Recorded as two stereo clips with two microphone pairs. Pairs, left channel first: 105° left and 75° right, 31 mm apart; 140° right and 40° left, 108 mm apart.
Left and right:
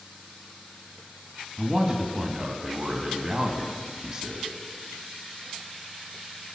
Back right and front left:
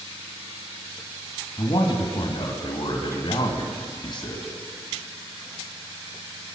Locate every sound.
1.6 s a man speaking: 135° right, 1.8 m